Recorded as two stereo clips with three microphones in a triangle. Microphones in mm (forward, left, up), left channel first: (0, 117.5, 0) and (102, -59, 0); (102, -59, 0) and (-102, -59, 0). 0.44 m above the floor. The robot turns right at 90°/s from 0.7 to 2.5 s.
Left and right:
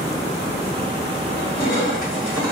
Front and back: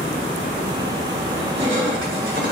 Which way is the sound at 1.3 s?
95° left.